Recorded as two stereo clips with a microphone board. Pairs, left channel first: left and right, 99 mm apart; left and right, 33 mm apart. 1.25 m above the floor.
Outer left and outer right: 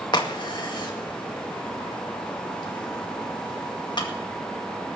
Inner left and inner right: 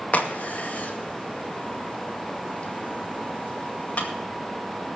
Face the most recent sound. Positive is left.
turn(degrees=50)  # may be behind; listen again after turning